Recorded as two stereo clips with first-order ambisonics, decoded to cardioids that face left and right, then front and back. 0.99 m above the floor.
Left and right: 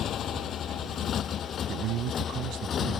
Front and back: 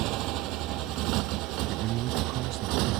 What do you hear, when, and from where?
0.0 s a motorcycle: 145° left; by 3.0 s 150° left
1.7 s a man speaking: 135° right